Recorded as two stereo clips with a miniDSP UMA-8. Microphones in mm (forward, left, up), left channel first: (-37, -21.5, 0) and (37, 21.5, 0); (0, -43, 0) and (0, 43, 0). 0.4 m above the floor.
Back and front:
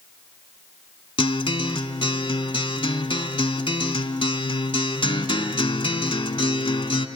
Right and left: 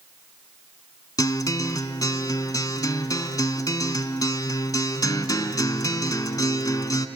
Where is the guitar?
135° right, 0.9 m.